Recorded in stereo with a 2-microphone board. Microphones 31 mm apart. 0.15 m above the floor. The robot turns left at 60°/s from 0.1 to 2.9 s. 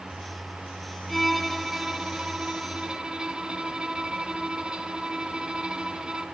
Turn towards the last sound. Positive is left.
turn(degrees=-30)  # may be behind; listen again after turning